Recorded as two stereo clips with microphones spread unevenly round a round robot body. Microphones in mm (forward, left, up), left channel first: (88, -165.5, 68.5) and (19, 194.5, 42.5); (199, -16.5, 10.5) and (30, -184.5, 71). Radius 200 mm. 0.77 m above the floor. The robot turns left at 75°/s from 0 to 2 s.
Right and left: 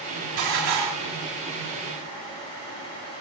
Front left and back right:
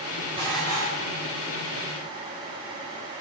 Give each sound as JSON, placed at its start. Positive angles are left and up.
{"t": 0.4, "sound": "dishes clattering", "azimuth_deg": 145, "distance_m": 1.2}